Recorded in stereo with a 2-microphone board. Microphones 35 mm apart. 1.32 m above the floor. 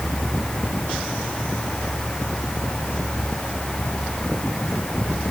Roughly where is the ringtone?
I don't hear a ringtone.